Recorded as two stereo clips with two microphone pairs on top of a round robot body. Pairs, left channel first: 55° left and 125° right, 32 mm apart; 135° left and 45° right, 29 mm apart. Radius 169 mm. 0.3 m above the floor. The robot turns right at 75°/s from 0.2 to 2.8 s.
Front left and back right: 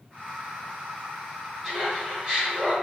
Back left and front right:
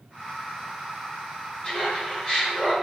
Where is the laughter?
135° left, 1.7 m; by 2.7 s 140° right, 1.7 m.